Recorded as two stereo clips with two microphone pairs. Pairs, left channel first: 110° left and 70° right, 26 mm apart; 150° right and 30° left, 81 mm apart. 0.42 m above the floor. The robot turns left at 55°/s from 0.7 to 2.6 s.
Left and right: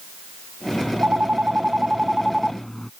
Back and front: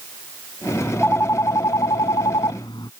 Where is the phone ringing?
70° right; by 2.9 s 170° right.